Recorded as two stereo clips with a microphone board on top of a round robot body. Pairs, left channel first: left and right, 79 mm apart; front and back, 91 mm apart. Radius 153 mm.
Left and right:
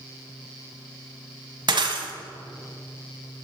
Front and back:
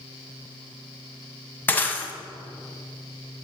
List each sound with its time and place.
1.7 s breaking glass: 70° right, 1.5 m